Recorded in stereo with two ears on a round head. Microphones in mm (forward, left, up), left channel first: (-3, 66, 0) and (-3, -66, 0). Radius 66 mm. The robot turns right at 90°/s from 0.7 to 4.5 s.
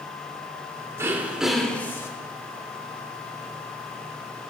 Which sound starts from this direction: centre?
Throat clearing, at 1.0 s.